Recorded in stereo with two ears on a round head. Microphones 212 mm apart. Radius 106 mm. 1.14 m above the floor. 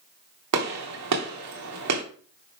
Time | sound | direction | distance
0.5 | a gunshot | 80° right | 2.5 m